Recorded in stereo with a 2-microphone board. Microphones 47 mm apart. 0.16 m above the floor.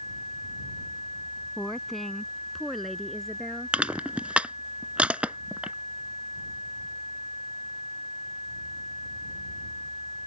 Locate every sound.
1.6 s a woman speaking: 5° left (ahead or behind); by 3.8 s centre (ahead or behind)
3.7 s crushing: 25° right (ahead or behind)